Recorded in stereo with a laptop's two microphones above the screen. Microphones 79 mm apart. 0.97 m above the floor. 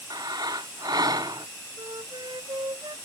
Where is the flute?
80° right.